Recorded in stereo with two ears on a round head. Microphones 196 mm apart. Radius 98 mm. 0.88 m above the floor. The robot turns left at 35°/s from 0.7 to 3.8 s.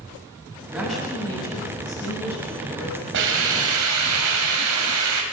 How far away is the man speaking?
About 7.5 m.